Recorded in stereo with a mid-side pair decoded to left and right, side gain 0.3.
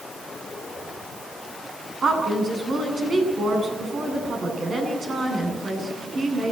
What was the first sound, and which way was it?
A woman speaking, 65° right.